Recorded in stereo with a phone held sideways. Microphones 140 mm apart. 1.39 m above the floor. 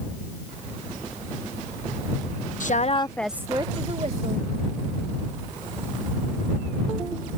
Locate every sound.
2.6 s a woman speaking: 65° left (ahead or behind); by 4.5 s 55° right (ahead or behind)